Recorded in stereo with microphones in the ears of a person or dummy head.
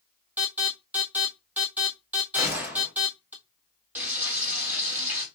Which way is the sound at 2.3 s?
10° right (ahead or behind).